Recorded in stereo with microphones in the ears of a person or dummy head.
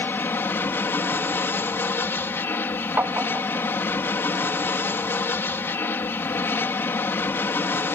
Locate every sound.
0.0 s an aircraft: 10° left (ahead or behind)
3.0 s tapping: 10° right (ahead or behind)